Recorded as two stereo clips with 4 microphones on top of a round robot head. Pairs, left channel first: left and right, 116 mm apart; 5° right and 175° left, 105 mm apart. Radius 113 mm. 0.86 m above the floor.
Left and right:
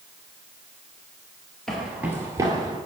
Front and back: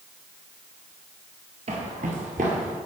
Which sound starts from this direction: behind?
Footsteps, at 1.7 s.